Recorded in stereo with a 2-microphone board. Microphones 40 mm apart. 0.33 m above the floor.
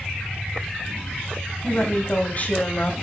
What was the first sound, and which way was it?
A woman speaking, 40° left (ahead or behind).